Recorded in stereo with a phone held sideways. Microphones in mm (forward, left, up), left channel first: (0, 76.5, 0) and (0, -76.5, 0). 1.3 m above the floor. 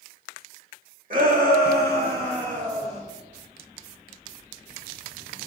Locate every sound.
1.1 s a shout: 60° right (ahead or behind), 2 m; by 3.0 s 40° right (ahead or behind), 1.8 m